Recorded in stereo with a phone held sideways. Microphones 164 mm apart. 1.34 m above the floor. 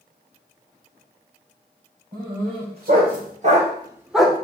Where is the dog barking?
75° right (ahead or behind), 3 m; by 4.4 s 10° left (ahead or behind), 1.3 m.